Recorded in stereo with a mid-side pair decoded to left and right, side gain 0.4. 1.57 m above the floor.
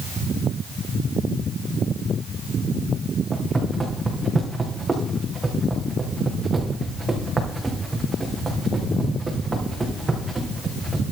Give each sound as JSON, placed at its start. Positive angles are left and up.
{"t": 3.3, "sound": "footsteps", "azimuth_deg": -30, "distance_m": 6.0}